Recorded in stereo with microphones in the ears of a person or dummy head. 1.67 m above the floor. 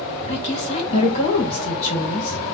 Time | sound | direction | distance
0.3 | a woman speaking | 35° left (ahead or behind) | 2.5 m